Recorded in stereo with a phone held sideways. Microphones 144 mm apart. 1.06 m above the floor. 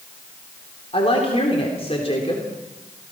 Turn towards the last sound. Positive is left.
turn(degrees=45)  # may be behind; listen again after turning